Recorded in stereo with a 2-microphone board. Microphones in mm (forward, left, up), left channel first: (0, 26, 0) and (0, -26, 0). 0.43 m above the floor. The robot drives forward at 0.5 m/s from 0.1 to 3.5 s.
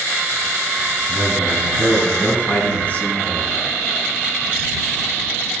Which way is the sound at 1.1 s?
40° left (ahead or behind).